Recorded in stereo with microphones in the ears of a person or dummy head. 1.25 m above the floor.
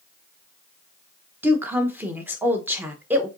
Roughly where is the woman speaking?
Centre.